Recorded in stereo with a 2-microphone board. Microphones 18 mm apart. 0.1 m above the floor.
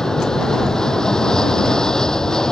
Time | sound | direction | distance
0.0 | an aircraft | 35° left (ahead or behind) | ?